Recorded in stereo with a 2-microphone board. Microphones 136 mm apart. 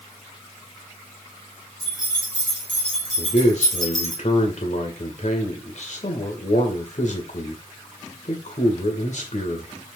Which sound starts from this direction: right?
Keys jangling, at 1.8 s.